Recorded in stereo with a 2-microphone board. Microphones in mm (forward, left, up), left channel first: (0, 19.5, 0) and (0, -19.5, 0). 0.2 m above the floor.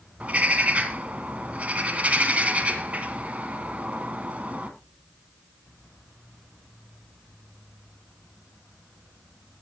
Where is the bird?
40° right (ahead or behind), 1.9 m.